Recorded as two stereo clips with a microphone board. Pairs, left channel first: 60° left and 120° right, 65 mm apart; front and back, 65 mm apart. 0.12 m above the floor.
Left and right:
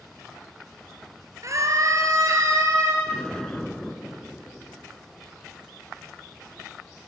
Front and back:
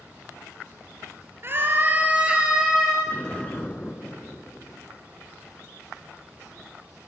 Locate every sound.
1.4 s a scream: 135° right, 2 m; by 3.0 s 95° right, 2.5 m
3.1 s an explosion: 5° left, 1.0 m